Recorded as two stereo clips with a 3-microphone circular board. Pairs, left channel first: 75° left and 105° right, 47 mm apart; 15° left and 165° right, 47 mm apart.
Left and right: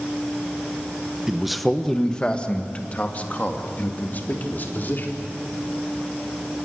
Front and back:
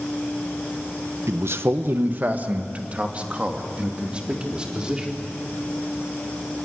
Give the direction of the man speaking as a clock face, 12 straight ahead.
6 o'clock.